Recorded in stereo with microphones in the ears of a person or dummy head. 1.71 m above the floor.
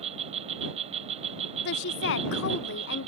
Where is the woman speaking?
60° left (ahead or behind).